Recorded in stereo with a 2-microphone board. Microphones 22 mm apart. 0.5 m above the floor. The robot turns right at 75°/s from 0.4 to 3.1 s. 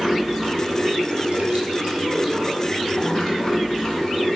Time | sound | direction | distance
0.0 | running water | 175° right | 0.8 m